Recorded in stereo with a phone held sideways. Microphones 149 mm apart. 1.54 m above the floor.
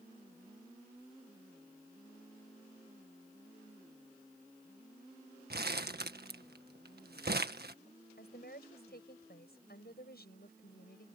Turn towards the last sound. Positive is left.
turn(degrees=80)